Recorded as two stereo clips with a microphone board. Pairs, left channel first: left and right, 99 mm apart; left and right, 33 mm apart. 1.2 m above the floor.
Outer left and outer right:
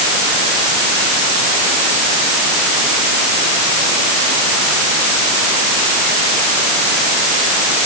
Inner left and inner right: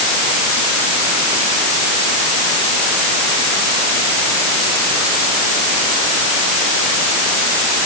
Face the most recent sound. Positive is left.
No sound to turn to.